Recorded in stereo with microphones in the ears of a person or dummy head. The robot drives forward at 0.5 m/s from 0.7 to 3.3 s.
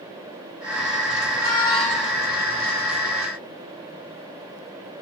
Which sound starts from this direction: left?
A squeak, at 1.3 s.